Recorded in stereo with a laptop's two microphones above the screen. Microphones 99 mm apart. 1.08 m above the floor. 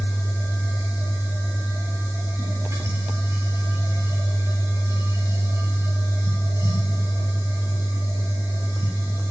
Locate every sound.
0.0 s a machine running: 30° right (ahead or behind), 3.5 m